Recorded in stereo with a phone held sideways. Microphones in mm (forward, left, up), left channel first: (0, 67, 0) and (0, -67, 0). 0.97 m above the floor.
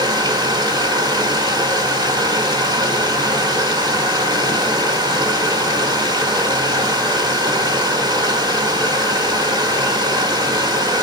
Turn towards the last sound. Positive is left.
turn(degrees=-35)  # may be behind; listen again after turning